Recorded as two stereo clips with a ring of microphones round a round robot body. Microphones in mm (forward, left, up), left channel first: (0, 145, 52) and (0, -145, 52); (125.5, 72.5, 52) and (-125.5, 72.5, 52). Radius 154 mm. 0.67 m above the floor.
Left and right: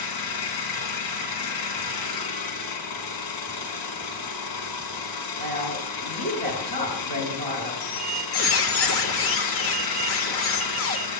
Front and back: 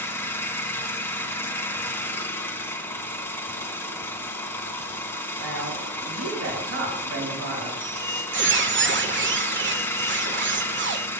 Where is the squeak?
135° left, 1.5 m.